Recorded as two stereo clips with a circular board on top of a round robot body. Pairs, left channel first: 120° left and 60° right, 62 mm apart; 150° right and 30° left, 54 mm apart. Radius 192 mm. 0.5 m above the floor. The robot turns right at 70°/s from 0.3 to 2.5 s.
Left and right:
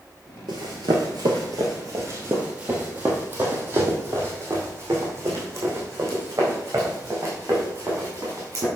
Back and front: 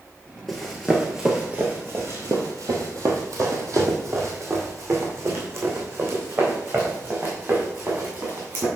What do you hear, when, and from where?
0.5 s running footsteps: 65° right, 0.8 m; by 8.7 s 15° right, 4 m